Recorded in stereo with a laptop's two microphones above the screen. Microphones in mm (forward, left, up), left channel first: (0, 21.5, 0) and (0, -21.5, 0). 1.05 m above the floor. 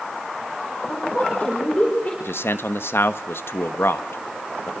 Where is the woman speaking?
35° left (ahead or behind), 5 m.